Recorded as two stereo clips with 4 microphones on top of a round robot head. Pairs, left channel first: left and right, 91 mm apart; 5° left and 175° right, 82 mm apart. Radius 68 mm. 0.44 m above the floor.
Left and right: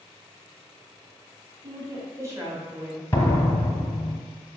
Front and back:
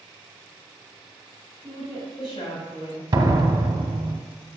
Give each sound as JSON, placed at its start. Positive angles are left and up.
{"t": 1.6, "sound": "a woman speaking", "azimuth_deg": -40, "distance_m": 3.5}
{"t": 3.1, "sound": "a door slam", "azimuth_deg": 155, "distance_m": 1.2}